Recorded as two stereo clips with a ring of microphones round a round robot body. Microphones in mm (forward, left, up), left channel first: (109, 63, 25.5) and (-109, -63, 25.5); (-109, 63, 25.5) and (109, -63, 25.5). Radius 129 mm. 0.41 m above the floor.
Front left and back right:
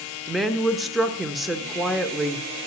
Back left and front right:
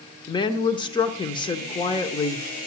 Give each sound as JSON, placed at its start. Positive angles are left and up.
{"t": 0.3, "sound": "a woman speaking", "azimuth_deg": 120, "distance_m": 0.9}